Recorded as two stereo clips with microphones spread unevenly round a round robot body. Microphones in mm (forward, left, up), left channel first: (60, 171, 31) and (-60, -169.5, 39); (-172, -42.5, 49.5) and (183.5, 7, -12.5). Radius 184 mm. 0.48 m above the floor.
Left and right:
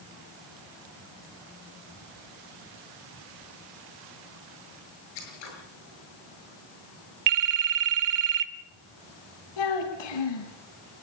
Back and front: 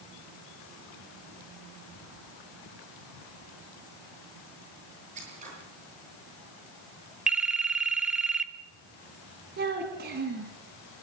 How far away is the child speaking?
About 3 m.